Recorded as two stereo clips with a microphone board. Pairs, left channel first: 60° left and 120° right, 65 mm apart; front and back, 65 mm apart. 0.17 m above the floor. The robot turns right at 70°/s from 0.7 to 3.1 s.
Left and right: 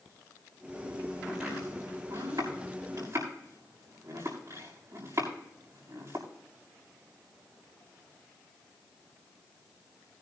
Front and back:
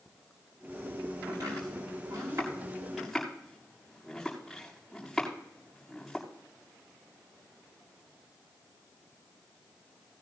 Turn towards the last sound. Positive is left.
turn(degrees=-90)